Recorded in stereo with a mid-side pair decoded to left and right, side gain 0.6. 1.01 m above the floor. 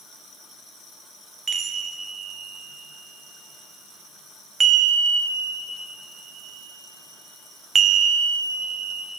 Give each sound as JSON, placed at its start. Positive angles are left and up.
{"t": 1.5, "sound": "a chime", "azimuth_deg": -35, "distance_m": 0.7}